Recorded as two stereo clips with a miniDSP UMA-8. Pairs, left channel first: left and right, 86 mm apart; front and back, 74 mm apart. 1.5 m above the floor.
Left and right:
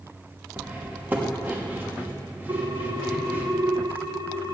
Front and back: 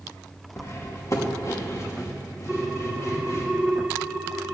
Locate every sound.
0.6 s cutlery clinking: 30° right, 1.1 m
2.5 s a ringtone: 120° right, 0.7 m